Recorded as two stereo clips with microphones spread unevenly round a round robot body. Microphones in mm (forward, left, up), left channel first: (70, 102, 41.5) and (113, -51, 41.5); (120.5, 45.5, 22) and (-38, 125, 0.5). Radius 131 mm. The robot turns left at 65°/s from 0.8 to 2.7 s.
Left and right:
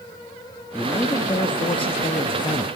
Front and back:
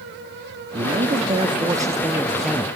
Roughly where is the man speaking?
Behind.